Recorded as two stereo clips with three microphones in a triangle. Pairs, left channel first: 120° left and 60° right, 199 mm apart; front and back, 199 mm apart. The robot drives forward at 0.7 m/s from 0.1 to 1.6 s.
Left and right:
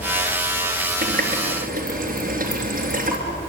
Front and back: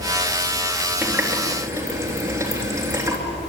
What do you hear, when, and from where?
1.0 s a running tap: 95° right, 4 m; by 3.2 s 105° right, 4 m